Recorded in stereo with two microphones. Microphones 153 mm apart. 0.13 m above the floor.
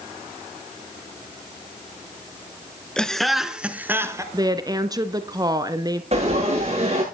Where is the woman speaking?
25° right (ahead or behind), 1.3 m.